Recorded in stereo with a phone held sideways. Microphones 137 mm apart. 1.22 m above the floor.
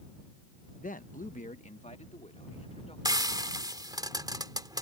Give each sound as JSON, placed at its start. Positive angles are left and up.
{"t": 0.8, "sound": "a man speaking", "side_deg": 65}
{"t": 3.0, "sound": "frying", "side_deg": -30}